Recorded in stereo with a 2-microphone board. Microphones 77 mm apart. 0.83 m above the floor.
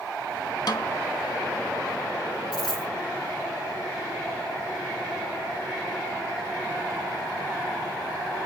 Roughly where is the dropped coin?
Centre.